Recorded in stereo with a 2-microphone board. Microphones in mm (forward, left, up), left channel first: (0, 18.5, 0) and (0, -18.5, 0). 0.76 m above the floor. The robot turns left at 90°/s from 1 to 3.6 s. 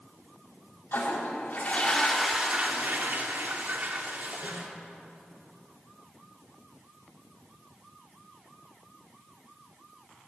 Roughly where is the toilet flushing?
Left.